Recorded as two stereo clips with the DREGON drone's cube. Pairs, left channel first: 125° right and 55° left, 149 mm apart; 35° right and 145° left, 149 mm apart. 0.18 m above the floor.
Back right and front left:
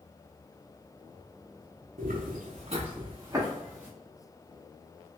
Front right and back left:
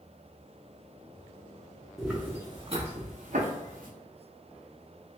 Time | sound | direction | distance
2.0 | footsteps | 55° left | 0.8 m